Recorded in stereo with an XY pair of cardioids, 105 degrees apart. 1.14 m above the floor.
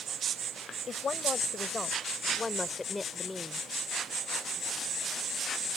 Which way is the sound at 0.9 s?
45° left.